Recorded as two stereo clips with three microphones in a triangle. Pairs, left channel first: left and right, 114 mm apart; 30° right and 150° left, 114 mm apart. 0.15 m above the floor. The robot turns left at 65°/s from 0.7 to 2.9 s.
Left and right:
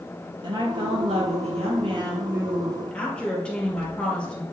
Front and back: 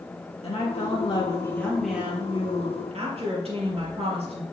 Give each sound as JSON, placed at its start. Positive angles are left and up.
{"t": 0.4, "sound": "a woman speaking", "azimuth_deg": -45, "distance_m": 3.5}